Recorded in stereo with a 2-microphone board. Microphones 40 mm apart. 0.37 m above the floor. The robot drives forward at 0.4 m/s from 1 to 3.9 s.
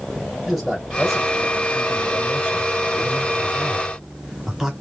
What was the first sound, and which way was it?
A man speaking, 5° right (ahead or behind).